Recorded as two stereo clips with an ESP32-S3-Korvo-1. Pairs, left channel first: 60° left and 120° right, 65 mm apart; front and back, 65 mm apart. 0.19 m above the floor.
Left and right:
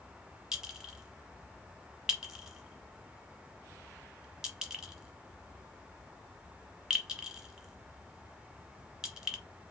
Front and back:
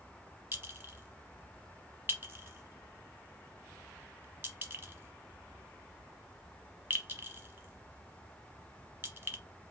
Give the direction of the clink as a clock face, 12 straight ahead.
6 o'clock.